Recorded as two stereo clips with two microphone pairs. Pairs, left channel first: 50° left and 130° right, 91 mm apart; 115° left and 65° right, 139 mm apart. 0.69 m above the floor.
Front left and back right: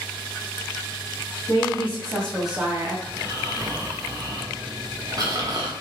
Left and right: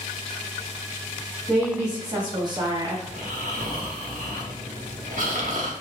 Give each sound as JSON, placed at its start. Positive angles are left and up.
{"t": 1.5, "sound": "a woman speaking", "azimuth_deg": -5, "distance_m": 1.5}
{"t": 3.1, "sound": "snoring", "azimuth_deg": -85, "distance_m": 0.8}